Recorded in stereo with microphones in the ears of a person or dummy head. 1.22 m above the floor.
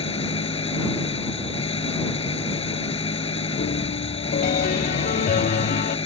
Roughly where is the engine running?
Left.